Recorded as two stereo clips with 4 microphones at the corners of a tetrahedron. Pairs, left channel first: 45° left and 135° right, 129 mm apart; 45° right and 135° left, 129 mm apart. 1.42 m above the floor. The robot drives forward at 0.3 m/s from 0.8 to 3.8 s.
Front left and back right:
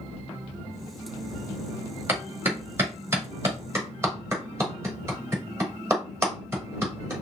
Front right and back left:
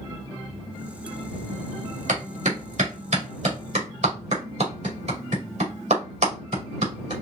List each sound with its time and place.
2.1 s a clap: 150° left, 2.0 m; by 7.1 s 155° left, 2.5 m